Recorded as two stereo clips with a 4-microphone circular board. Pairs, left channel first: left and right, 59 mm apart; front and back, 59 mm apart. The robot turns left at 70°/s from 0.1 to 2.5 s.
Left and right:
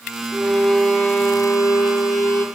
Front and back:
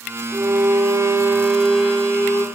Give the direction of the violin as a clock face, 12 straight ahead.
6 o'clock.